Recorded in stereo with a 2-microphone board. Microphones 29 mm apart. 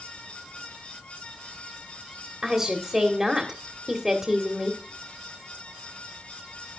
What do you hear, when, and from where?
2.4 s a woman speaking: 20° right (ahead or behind), 1.6 m